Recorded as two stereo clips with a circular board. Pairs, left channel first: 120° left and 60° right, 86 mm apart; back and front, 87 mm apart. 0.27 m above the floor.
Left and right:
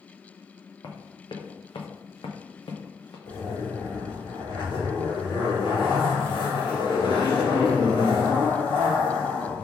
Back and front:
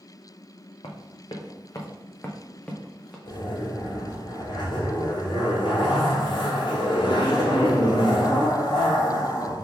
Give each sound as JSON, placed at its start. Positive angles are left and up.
{"t": 0.8, "sound": "running footsteps", "azimuth_deg": 160, "distance_m": 1.2}
{"t": 3.2, "sound": "a zipper", "azimuth_deg": 150, "distance_m": 2.0}